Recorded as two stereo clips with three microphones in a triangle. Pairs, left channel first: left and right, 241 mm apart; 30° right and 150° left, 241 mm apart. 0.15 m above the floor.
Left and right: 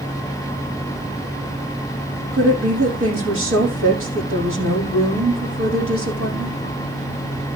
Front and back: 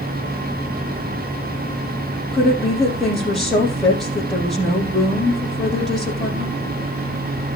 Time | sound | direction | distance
2.3 | a woman speaking | 120° right | 4.5 m